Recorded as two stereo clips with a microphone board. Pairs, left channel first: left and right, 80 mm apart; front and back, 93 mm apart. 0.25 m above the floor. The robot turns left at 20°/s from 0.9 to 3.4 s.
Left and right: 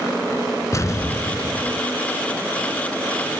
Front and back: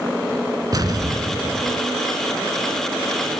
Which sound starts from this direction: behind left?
An explosion, at 0.7 s.